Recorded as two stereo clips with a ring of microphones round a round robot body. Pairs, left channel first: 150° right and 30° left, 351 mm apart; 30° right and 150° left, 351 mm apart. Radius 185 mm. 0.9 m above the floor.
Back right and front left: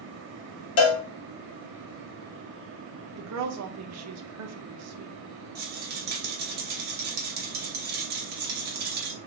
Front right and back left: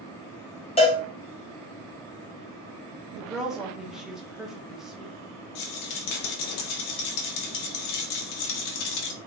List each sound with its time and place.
0.8 s a cowbell: 100° right, 0.6 m
3.2 s a woman speaking: 60° left, 0.8 m
5.5 s a rattle: 35° right, 0.8 m